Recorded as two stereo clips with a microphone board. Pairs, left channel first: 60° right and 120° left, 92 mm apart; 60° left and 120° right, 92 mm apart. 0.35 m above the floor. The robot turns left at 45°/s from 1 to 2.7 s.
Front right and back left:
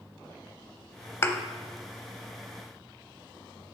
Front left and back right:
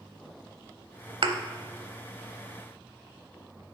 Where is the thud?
115° right, 0.6 m; by 1.4 s 125° right, 0.6 m.